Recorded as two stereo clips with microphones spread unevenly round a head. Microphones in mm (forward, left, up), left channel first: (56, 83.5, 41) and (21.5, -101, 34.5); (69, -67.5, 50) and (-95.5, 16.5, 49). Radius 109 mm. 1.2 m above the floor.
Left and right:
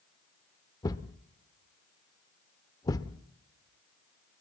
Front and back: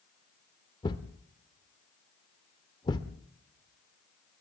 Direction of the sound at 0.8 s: 30° left.